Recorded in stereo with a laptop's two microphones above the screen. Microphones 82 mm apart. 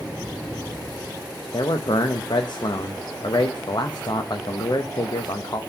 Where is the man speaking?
60° left (ahead or behind), 0.6 m.